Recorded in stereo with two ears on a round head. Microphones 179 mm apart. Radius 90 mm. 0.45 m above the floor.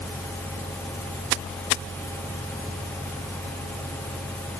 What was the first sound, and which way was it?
Only background noise.